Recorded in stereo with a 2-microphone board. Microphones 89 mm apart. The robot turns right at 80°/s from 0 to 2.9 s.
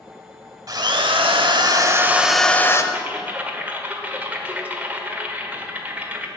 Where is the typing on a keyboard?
20° right (ahead or behind), 1.2 m.